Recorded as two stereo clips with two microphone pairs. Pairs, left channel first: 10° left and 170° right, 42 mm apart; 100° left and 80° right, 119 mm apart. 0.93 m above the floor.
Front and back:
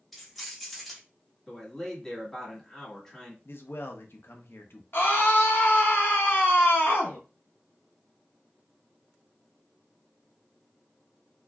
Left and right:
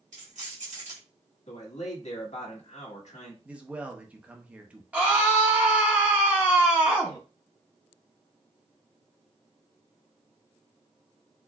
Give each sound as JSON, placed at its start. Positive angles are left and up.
{"t": 0.1, "sound": "keys jangling", "azimuth_deg": -80, "distance_m": 1.2}
{"t": 1.5, "sound": "a man speaking", "azimuth_deg": 85, "distance_m": 1.6}
{"t": 3.5, "sound": "a man speaking", "azimuth_deg": -5, "distance_m": 0.7}
{"t": 4.9, "sound": "a scream", "azimuth_deg": -5, "distance_m": 1.0}